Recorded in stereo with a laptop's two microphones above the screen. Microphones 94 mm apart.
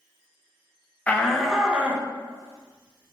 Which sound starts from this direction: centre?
A shout, at 1.1 s.